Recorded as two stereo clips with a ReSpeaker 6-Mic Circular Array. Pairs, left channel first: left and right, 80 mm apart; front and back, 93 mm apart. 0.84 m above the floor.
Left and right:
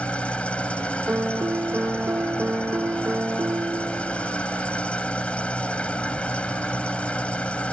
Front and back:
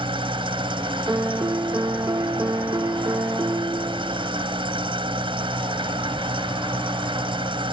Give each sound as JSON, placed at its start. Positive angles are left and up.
{"t": 0.0, "sound": "an engine running", "azimuth_deg": 165}
{"t": 1.1, "sound": "a piano", "azimuth_deg": -135}